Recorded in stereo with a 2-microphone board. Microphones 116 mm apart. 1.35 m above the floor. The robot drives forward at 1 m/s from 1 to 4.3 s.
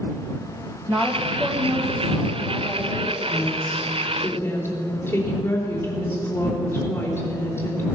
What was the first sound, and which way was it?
A woman speaking, 20° right (ahead or behind).